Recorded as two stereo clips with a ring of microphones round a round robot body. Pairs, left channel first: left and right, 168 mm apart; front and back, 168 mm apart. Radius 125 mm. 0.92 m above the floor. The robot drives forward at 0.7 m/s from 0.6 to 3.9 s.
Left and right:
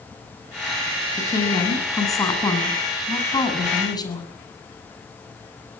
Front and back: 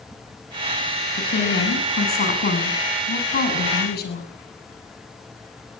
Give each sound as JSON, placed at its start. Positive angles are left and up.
{"t": 1.2, "sound": "a woman speaking", "azimuth_deg": 20, "distance_m": 9.0}